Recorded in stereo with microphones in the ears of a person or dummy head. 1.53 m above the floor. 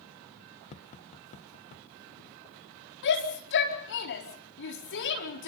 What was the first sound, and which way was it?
Tapping, 30° left (ahead or behind).